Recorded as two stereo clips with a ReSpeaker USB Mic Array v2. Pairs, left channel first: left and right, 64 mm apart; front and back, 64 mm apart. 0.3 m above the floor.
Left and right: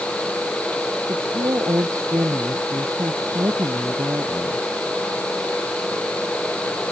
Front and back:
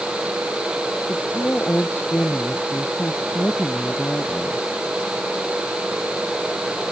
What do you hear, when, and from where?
1.1 s a woman speaking: 60° right